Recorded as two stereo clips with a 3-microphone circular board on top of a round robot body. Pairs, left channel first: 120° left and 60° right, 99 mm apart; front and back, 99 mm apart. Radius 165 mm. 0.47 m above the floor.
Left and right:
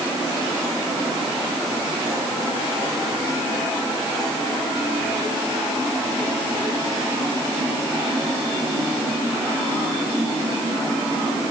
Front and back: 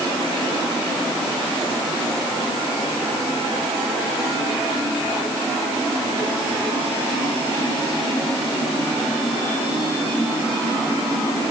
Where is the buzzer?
No buzzer in this recording.